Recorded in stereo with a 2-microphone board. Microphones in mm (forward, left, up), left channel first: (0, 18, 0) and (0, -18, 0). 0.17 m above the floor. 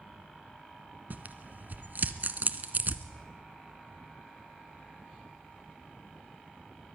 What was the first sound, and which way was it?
Tearing paper, 55° right (ahead or behind).